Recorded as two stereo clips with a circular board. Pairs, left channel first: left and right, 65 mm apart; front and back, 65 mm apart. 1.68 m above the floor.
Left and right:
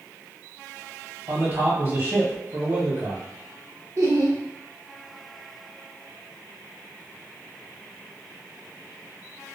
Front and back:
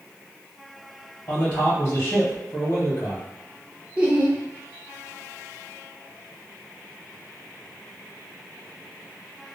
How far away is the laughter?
About 1.1 m.